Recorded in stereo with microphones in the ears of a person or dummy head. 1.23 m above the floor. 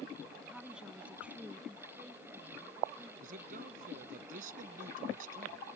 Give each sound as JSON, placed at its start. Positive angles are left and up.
{"t": 0.5, "sound": "a woman speaking", "side_deg": -5}
{"t": 3.2, "sound": "a man speaking", "side_deg": -50}